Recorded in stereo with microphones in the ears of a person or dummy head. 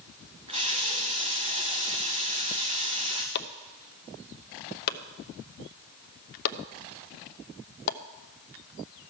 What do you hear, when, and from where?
0.5 s a running tap: 30° right (ahead or behind), 1.1 m
3.4 s chopping: 60° left (ahead or behind), 0.7 m